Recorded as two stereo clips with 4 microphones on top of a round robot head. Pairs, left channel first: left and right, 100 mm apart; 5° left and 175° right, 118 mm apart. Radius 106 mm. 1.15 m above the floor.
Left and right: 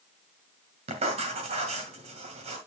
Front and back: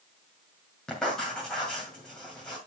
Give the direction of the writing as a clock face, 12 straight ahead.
3 o'clock.